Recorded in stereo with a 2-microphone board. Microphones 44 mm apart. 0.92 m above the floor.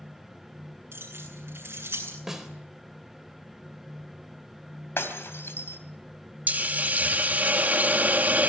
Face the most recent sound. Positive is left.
turn(degrees=-40)  # may be behind; listen again after turning